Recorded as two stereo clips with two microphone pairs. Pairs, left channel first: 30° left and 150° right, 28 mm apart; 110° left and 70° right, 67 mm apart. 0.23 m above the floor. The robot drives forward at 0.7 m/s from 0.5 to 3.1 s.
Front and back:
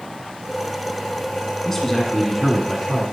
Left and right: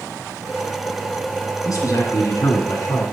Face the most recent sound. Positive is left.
turn(degrees=135)